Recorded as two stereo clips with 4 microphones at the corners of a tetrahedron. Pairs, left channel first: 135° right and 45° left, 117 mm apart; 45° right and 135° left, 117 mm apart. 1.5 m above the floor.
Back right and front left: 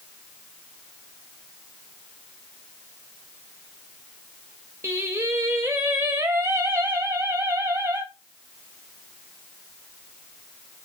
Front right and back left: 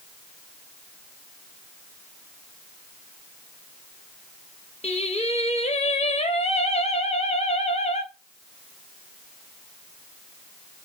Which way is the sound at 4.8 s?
25° right.